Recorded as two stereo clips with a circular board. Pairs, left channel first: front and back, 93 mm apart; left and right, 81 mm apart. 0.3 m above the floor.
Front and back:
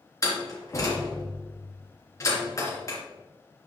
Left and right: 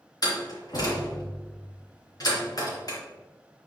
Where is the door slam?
55° left, 3 m.